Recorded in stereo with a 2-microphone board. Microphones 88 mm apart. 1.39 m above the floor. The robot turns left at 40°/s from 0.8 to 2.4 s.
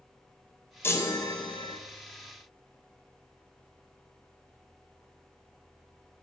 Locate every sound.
0.8 s a chime: 155° left, 0.6 m; by 1.8 s 115° left, 0.6 m